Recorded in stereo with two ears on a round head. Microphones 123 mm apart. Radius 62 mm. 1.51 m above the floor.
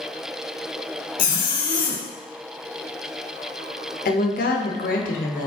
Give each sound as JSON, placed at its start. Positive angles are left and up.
{"t": 1.2, "sound": "a zipper", "side_deg": 65, "distance_m": 0.6}
{"t": 4.0, "sound": "a woman speaking", "side_deg": 65, "distance_m": 0.7}